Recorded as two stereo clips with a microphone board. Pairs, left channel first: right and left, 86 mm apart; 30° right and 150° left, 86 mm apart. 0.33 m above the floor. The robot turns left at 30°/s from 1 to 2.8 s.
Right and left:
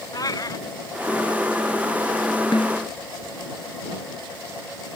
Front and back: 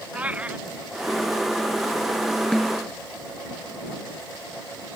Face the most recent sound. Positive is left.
turn(degrees=-120)